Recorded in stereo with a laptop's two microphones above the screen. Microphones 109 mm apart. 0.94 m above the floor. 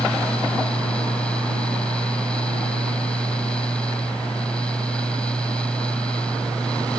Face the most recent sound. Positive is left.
turn(degrees=10)  # may be behind; listen again after turning